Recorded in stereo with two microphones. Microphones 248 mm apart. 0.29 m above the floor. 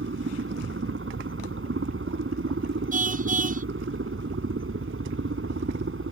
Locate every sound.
0.0 s a helicopter: 55° right (ahead or behind)
2.9 s a car horn: 30° right (ahead or behind)